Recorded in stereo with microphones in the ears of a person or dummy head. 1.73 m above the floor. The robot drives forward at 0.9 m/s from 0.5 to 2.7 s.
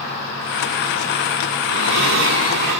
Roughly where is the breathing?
Right.